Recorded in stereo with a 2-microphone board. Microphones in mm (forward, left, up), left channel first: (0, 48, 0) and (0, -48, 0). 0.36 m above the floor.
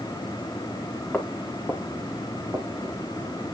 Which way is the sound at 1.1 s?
15° left (ahead or behind).